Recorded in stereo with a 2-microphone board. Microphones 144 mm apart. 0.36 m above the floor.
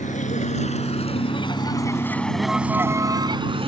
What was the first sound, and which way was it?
A vehicle, 60° left (ahead or behind).